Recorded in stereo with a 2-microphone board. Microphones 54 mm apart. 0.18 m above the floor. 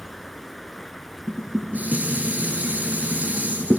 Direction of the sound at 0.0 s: Centre (ahead or behind).